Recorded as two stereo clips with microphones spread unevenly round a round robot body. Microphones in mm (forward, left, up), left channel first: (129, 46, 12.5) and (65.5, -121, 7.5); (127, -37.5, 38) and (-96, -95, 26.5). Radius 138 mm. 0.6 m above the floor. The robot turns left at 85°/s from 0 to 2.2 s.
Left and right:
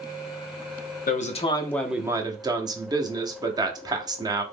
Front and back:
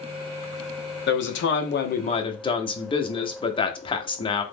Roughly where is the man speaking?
Ahead left.